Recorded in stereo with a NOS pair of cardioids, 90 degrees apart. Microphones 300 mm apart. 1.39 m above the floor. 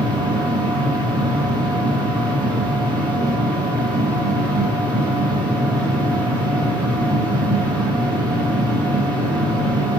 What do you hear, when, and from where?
0.0 s a machine running: 15° right, 1.3 m